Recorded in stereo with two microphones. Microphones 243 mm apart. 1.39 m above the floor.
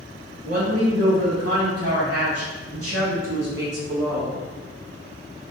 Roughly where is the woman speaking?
Right.